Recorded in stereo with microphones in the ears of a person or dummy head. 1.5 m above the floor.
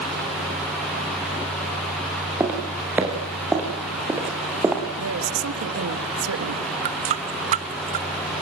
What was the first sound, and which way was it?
Footsteps, 5° right (ahead or behind).